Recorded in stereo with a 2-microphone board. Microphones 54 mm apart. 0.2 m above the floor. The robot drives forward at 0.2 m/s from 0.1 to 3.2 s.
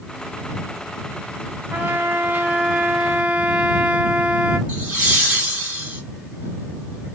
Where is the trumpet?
35° right (ahead or behind), 0.5 m; by 4.6 s 25° right (ahead or behind), 0.7 m.